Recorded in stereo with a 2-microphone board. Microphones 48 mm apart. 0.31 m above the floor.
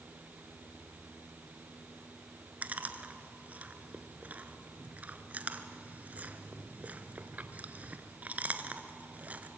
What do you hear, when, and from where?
2.6 s chewing: 35° right (ahead or behind), 1.1 m